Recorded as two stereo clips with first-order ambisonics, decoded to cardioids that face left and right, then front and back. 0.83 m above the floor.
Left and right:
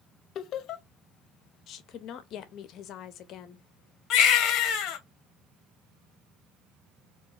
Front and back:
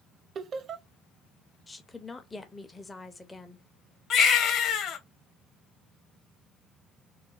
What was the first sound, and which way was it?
Laughter, 125° left.